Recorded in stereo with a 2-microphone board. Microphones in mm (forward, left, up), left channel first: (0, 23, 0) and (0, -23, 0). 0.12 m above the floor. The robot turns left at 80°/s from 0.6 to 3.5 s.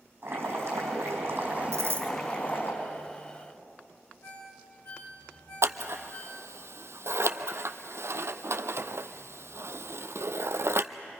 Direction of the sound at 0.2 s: 60° right.